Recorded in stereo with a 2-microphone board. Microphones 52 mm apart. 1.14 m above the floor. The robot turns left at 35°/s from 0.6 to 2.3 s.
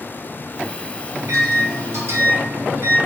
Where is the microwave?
85° right, 0.8 m; by 3.0 s 125° right, 0.8 m.